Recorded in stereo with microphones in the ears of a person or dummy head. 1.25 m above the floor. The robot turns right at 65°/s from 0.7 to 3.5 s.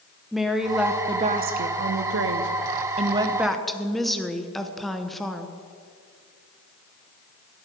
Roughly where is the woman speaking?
Behind.